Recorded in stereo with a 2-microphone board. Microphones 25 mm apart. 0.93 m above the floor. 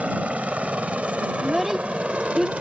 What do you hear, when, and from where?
0.0 s a helicopter: 65° right (ahead or behind); by 2.6 s 55° right (ahead or behind)
1.4 s a child speaking: 15° right (ahead or behind)